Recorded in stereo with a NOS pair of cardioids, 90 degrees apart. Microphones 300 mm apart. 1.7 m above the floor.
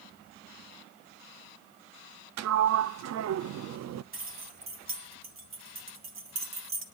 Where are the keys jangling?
45° right, 2.5 m.